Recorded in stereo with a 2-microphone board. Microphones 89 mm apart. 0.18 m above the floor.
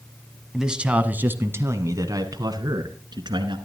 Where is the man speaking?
5° right (ahead or behind), 1.2 m; by 3.6 s 60° right (ahead or behind), 1.9 m.